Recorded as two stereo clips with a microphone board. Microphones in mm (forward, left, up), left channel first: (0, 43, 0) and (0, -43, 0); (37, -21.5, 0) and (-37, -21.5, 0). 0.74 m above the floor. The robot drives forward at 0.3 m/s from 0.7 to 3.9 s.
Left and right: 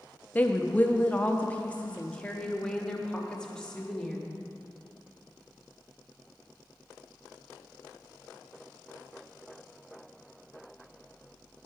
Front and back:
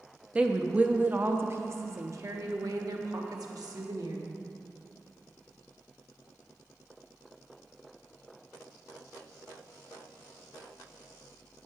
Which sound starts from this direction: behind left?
A woman speaking, at 0.3 s.